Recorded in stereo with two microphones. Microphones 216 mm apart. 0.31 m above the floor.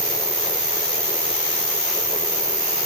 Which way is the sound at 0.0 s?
40° right (ahead or behind).